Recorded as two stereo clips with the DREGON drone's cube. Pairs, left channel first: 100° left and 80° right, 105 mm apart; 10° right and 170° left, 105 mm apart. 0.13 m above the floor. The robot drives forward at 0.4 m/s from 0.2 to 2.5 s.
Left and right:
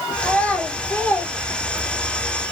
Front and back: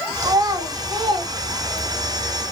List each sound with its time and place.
0.2 s a child speaking: 165° left, 1.2 m; by 2.1 s 175° left, 1.7 m